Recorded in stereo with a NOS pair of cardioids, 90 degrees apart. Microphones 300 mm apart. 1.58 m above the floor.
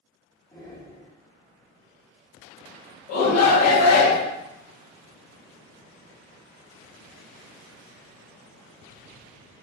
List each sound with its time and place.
0.5 s breathing: 10° left, 0.9 m
3.1 s a shout: 60° left, 0.6 m